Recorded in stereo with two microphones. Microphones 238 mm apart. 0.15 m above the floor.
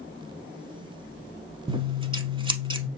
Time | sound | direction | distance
1.7 | scissors | 20° right (ahead or behind) | 0.6 m